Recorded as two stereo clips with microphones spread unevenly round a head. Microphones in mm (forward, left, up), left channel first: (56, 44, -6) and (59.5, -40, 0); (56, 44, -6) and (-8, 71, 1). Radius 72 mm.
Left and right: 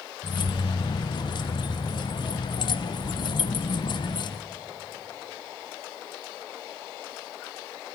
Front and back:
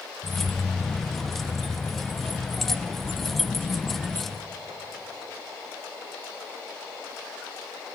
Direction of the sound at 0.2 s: 65° left.